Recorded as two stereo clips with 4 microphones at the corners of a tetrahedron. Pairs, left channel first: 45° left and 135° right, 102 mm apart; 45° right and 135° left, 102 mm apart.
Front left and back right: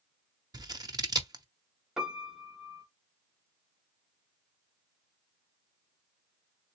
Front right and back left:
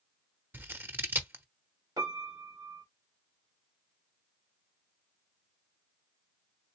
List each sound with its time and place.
0.5 s scissors: 165° right, 0.7 m
2.0 s a piano: 145° left, 1.6 m